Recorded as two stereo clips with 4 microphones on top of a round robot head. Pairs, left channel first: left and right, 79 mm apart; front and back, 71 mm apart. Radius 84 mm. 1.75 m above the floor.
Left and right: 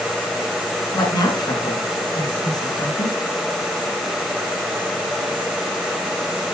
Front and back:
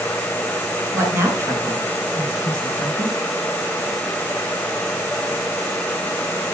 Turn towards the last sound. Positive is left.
turn(degrees=130)